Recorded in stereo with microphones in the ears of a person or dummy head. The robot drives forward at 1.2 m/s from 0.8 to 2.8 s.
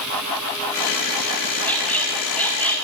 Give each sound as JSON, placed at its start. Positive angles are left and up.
{"t": 1.6, "sound": "a squeak", "side_deg": 5, "distance_m": 5.5}